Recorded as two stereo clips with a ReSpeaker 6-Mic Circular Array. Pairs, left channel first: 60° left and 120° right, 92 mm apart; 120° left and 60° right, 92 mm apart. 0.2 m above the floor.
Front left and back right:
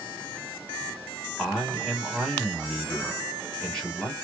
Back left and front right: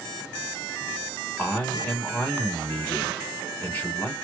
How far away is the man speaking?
About 1.1 m.